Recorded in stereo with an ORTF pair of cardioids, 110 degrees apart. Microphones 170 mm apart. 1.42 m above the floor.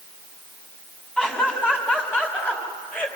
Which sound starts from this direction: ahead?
Laughter, at 1.2 s.